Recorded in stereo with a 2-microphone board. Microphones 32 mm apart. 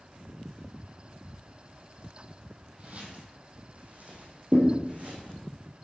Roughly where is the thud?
Right.